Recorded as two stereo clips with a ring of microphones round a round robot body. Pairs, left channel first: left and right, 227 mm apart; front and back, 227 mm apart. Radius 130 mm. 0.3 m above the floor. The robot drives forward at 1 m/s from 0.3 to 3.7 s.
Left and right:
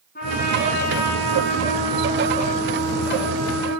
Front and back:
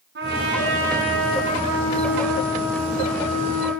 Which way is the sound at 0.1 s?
145° left.